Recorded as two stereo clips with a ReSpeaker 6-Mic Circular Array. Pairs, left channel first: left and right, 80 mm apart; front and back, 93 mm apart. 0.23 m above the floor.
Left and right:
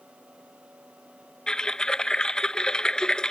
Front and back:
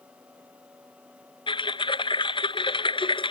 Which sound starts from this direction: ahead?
Typing on a keyboard, at 1.5 s.